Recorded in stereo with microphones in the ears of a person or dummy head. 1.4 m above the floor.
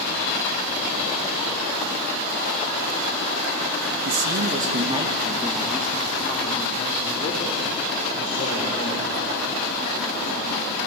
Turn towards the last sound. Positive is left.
turn(degrees=35)  # may be behind; listen again after turning